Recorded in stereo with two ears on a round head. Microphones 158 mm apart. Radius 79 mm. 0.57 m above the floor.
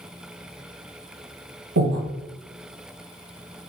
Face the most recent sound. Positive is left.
turn(degrees=-85)